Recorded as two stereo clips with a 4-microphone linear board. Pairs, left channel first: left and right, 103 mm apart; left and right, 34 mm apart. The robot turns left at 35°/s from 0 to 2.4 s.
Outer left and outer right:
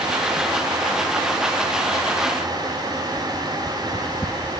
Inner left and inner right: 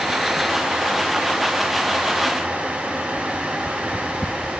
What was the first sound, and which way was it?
Only background noise.